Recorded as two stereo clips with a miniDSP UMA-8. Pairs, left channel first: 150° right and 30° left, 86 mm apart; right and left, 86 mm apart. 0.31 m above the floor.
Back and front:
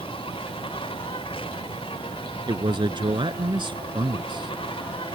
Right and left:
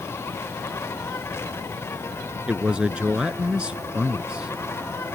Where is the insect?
150° right.